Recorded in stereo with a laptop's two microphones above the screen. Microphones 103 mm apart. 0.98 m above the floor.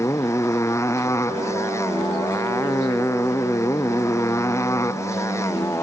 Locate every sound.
0.0 s a motorcycle: 30° left (ahead or behind)
1.3 s a piano: 45° right (ahead or behind)